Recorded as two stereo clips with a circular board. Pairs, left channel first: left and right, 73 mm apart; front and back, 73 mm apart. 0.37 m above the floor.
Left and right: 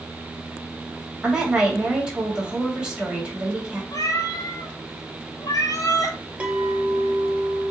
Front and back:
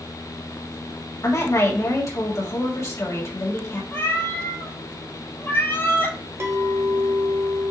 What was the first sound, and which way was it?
A woman speaking, 20° right.